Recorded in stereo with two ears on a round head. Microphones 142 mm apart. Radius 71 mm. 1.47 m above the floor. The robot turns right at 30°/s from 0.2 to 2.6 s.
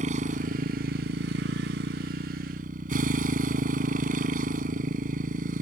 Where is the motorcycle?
130° right; by 5.6 s 60° right.